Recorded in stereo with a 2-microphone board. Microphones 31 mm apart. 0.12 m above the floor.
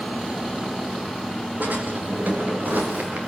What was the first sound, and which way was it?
A drawer, 70° right (ahead or behind).